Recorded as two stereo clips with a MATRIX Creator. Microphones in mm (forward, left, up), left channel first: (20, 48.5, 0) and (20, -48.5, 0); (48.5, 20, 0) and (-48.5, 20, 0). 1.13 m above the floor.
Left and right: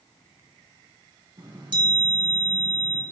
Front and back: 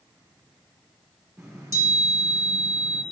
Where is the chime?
120° right, 1.7 m.